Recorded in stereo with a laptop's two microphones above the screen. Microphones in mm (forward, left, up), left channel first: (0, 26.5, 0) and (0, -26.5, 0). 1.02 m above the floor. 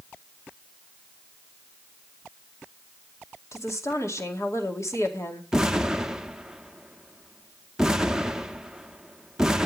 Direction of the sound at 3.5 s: 70° left (ahead or behind).